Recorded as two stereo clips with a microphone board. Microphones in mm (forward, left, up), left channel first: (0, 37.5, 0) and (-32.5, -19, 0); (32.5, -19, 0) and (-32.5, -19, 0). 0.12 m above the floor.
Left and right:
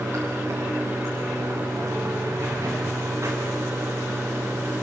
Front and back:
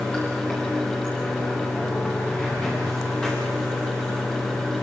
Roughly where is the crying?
No crying in this recording.